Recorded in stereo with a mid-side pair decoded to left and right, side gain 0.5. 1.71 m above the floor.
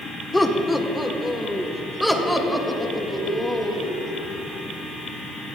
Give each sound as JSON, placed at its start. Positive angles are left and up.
{"t": 0.3, "sound": "laughter", "azimuth_deg": 10, "distance_m": 1.5}